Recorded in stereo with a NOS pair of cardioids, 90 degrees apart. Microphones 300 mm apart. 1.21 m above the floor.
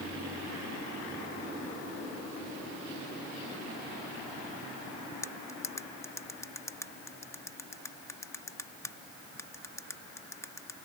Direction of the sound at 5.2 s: 10° left.